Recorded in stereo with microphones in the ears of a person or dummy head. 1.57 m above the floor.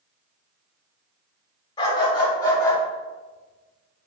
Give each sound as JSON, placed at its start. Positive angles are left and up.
{"t": 1.8, "sound": "a dog barking", "side_deg": 25, "distance_m": 2.5}